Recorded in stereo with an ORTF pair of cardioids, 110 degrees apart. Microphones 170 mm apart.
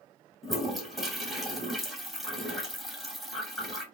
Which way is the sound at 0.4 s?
Straight ahead.